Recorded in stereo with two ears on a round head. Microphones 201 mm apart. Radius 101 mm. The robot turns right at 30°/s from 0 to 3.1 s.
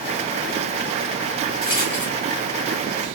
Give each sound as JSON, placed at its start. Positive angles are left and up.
{"t": 1.6, "sound": "a rattle", "side_deg": 35, "distance_m": 1.5}